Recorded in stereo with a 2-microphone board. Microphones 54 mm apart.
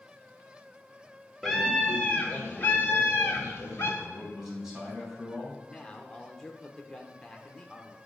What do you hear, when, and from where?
1.4 s a scream: 5° left (ahead or behind), 1.1 m; by 3.9 s 50° left (ahead or behind), 2 m
4.0 s a man speaking: 10° right (ahead or behind), 3 m
5.6 s a man speaking: 10° left (ahead or behind), 0.8 m